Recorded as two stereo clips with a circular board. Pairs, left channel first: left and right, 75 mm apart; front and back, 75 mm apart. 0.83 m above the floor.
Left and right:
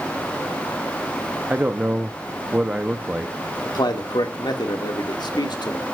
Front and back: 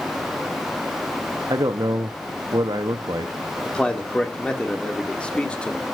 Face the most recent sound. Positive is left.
turn(degrees=75)